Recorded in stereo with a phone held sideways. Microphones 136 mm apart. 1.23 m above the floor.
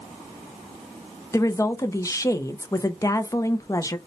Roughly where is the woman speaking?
Left.